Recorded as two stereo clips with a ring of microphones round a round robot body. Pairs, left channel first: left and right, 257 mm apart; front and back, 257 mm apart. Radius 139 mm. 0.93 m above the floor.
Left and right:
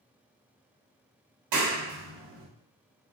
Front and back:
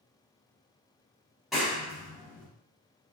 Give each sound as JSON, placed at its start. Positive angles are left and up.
{"t": 1.5, "sound": "a clap", "azimuth_deg": -90, "distance_m": 1.3}